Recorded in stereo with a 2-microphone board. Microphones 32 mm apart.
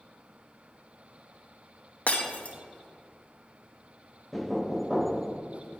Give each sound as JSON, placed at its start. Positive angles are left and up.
{"t": 2.1, "sound": "breaking glass", "side_deg": 45, "distance_m": 0.9}
{"t": 4.3, "sound": "knocking", "side_deg": 0, "distance_m": 0.5}